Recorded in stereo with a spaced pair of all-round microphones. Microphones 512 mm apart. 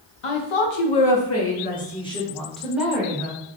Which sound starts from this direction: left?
A woman speaking, at 0.2 s.